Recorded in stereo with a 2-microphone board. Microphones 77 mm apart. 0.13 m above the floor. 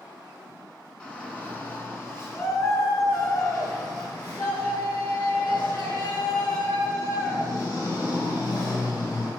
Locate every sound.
1.0 s a shout: 10° left (ahead or behind), 1.5 m; by 9.3 s 65° left (ahead or behind), 4.5 m